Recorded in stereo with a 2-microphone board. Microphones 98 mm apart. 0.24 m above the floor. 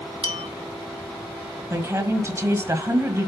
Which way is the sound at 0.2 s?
65° right (ahead or behind).